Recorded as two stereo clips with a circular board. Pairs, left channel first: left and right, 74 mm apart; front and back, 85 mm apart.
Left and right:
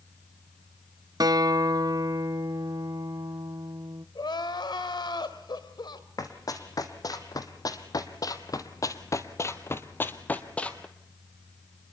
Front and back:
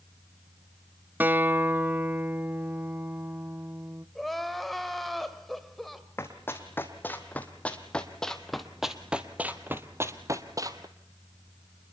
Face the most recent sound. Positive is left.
turn(degrees=165)